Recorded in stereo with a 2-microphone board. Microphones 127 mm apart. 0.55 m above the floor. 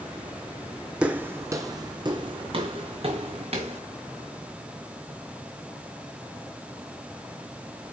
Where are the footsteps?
10° right (ahead or behind), 1.0 m; by 3.8 s 60° right (ahead or behind), 2.5 m.